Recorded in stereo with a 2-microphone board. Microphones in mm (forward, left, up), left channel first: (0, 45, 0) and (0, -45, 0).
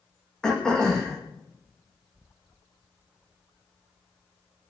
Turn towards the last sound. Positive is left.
turn(degrees=10)  # may be behind; listen again after turning